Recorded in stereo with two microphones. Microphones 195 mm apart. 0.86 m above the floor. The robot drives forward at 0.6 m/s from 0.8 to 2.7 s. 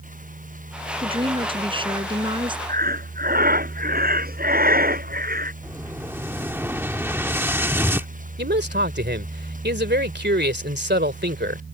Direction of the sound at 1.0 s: 25° right (ahead or behind).